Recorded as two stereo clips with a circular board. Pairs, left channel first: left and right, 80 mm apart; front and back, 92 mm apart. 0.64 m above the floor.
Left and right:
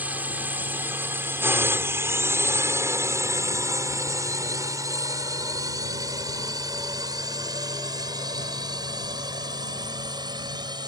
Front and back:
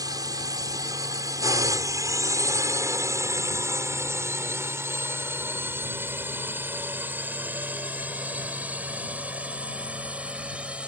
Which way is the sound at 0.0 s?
155° right.